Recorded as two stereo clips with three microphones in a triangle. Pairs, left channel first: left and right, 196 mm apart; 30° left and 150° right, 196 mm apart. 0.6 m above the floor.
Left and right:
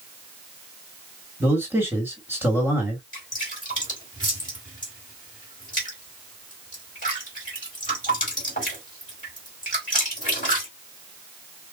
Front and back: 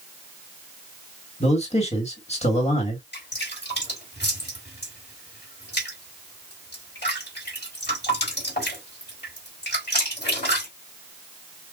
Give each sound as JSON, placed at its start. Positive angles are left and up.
{"t": 1.4, "sound": "a man speaking", "azimuth_deg": -15, "distance_m": 1.6}
{"t": 3.1, "sound": "dripping", "azimuth_deg": 50, "distance_m": 3.5}